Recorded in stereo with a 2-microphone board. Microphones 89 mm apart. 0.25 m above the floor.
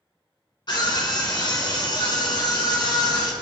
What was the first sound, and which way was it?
A scream, 55° left (ahead or behind).